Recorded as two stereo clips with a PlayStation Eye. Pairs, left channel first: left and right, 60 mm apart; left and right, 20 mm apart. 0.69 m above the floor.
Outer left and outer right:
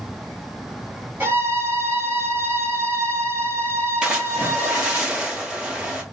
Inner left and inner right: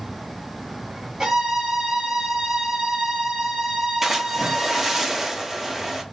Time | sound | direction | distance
1.2 | a violin | 35° right (ahead or behind) | 1.6 m
4.0 | a splash | 15° right (ahead or behind) | 1.2 m